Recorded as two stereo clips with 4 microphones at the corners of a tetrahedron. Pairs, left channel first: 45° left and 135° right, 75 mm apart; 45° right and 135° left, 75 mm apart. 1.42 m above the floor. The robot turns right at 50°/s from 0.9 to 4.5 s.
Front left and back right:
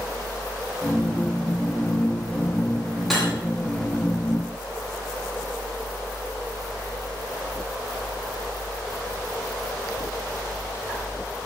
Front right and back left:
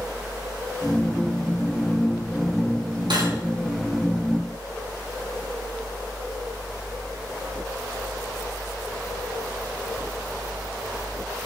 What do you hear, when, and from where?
3.1 s cutlery clinking: 135° left, 8 m; by 3.3 s 145° left, 8 m